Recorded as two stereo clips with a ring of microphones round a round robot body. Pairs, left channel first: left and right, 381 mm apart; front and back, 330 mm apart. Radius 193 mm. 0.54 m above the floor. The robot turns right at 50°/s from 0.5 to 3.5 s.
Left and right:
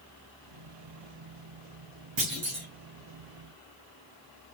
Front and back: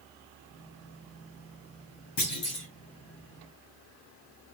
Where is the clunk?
35° right, 4 m; by 2.7 s 10° right, 4 m.